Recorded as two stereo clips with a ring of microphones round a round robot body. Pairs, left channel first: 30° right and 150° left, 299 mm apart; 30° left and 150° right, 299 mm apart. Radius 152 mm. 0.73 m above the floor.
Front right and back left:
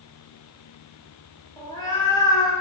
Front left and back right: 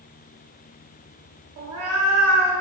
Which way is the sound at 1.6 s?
110° right.